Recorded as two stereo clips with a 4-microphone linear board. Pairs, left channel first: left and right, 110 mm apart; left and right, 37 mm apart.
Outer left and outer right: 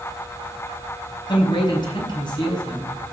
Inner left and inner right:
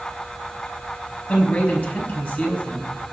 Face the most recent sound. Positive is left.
turn(degrees=40)  # may be behind; listen again after turning